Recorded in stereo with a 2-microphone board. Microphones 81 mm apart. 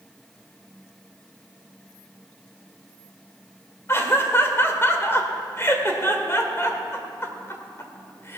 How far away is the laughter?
About 1.8 m.